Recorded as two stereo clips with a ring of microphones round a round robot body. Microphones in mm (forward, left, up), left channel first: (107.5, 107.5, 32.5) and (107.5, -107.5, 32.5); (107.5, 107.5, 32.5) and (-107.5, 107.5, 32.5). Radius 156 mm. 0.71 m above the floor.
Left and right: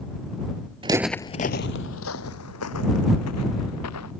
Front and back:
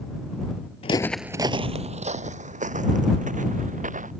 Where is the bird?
I don't hear a bird.